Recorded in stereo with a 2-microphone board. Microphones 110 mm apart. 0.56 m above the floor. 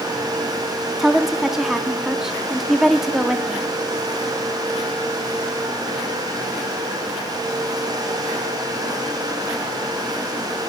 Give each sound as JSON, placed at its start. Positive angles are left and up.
{"t": 1.0, "sound": "a woman speaking", "side_deg": -5, "distance_m": 0.7}